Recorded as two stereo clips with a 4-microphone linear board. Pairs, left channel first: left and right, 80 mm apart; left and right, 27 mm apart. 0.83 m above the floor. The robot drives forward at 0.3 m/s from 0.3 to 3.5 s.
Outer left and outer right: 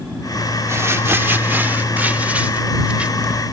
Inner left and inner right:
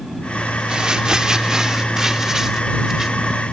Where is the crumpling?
35° right (ahead or behind); by 3.4 s 15° right (ahead or behind).